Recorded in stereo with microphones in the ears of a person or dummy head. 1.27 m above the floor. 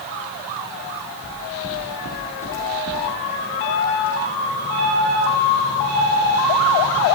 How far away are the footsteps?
About 2 m.